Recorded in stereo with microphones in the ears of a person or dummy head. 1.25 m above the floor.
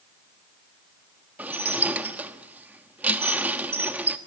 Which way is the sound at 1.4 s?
10° right (ahead or behind).